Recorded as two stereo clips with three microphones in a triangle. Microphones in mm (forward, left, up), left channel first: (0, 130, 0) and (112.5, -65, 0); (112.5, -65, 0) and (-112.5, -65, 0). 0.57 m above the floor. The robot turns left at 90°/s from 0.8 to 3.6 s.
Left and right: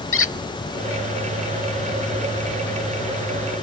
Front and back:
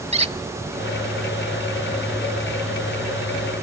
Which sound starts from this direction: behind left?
A squeak, at 0.1 s.